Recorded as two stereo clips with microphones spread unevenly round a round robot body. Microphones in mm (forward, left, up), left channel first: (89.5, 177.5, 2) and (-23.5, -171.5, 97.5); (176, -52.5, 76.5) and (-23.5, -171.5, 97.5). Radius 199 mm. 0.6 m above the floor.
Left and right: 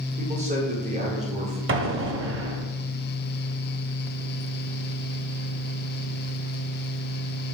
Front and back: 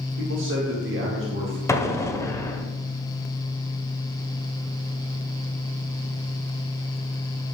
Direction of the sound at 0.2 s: 175° left.